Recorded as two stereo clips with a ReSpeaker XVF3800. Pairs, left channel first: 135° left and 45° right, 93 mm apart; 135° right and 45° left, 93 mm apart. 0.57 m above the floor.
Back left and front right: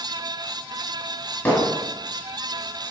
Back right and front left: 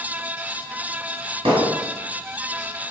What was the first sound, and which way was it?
Hammering, 65° left.